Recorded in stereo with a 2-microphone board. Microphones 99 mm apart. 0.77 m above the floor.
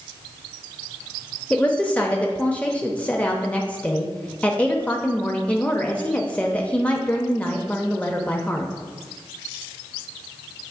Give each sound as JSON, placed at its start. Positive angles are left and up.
{"t": 1.5, "sound": "a woman speaking", "side_deg": 15, "distance_m": 0.7}